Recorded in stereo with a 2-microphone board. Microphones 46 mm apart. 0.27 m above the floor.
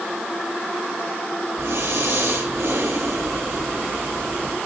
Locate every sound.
1.6 s breathing: 80° right, 4.5 m